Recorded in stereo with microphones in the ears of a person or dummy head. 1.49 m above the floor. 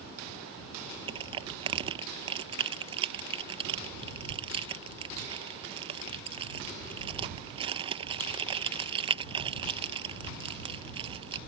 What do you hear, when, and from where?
1.1 s crushing: 30° right (ahead or behind)